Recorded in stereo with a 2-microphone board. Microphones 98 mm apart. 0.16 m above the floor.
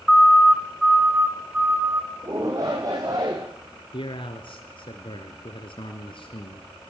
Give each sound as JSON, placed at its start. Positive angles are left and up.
{"t": 0.1, "sound": "a siren", "side_deg": 5, "distance_m": 2.5}
{"t": 2.2, "sound": "a shout", "side_deg": -35, "distance_m": 6.5}
{"t": 3.9, "sound": "a man speaking", "side_deg": 55, "distance_m": 2.5}